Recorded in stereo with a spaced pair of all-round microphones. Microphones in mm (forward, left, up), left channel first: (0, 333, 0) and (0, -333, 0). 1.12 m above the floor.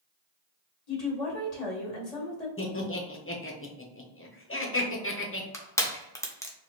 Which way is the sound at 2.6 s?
20° left (ahead or behind).